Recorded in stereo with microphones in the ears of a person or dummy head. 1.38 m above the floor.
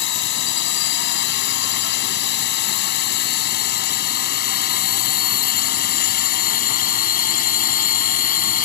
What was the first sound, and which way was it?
A drone, 60° left (ahead or behind).